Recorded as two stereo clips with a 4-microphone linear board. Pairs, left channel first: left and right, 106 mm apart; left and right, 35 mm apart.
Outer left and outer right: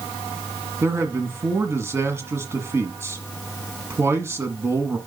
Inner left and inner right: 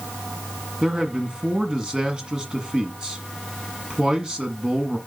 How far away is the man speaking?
About 1.4 m.